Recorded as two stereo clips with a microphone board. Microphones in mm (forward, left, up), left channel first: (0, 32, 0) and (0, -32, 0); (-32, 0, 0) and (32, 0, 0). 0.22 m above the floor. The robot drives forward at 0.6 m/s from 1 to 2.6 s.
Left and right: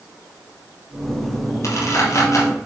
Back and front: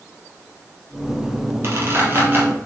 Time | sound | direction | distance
1.6 | a squeak | 50° left | 3 m